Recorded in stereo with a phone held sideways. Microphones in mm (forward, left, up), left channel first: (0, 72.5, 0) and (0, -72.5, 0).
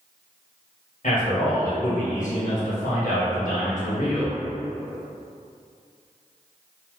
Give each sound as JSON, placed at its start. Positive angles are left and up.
{"t": 1.0, "sound": "a man speaking", "side_deg": 65, "distance_m": 1.5}